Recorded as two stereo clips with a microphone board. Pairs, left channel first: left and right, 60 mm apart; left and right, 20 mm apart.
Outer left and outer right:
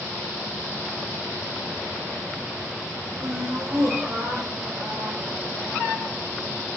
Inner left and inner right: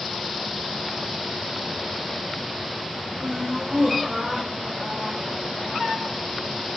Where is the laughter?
75° right (ahead or behind), 4 m; by 5.9 s 40° right (ahead or behind), 4.5 m.